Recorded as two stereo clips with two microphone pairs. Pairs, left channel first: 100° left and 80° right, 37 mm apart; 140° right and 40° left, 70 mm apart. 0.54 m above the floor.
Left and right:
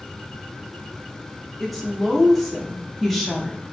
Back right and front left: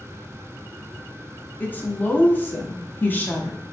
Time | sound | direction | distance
1.6 | a woman speaking | 165° right | 0.7 m